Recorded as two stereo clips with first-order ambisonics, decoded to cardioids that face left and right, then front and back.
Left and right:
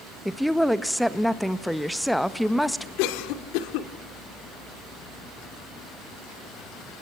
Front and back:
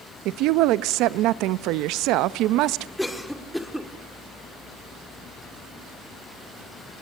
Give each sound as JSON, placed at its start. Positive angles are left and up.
{"t": 0.2, "sound": "a woman speaking", "azimuth_deg": 180, "distance_m": 0.8}
{"t": 3.0, "sound": "a cough", "azimuth_deg": 85, "distance_m": 2.0}